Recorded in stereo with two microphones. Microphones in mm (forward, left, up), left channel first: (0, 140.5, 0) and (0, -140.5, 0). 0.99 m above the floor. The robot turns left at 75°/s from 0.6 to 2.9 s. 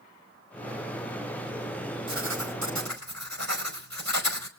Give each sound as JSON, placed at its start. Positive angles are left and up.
{"t": 2.1, "sound": "writing", "azimuth_deg": -45, "distance_m": 4.5}